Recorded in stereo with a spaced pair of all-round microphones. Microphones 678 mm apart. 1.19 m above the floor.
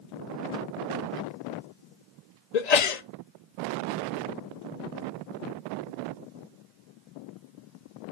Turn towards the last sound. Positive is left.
turn(degrees=65)  # may be behind; listen again after turning